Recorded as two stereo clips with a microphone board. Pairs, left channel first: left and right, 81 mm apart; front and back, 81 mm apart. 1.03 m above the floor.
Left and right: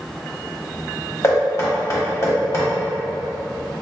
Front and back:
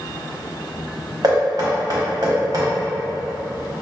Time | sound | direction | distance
1.2 | knocking | 145° left | 1.0 m